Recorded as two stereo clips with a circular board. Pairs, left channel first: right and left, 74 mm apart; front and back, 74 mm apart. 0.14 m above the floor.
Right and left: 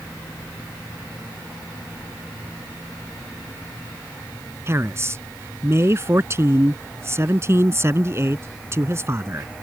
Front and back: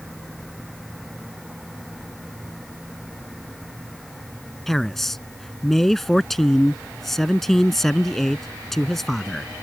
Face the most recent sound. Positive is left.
turn(degrees=85)